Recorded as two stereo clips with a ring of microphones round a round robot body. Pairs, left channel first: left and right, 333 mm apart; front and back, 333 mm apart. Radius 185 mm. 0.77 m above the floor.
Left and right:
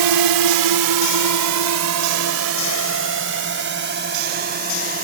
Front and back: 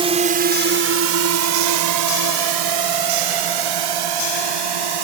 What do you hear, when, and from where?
0.0 s a drone: 105° right; by 5.0 s 160° right